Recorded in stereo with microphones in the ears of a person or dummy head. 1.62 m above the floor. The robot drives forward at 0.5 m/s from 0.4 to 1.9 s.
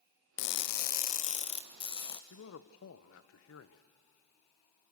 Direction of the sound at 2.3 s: 75° left (ahead or behind).